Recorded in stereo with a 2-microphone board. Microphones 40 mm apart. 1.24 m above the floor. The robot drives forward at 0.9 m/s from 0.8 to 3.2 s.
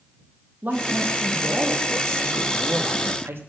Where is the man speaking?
50° right (ahead or behind), 2 m; by 3.4 s 65° right (ahead or behind), 1.9 m.